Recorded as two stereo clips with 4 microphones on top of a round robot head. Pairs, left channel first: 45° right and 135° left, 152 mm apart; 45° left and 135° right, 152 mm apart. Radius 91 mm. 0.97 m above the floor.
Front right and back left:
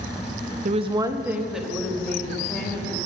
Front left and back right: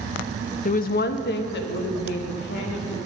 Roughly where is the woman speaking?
Left.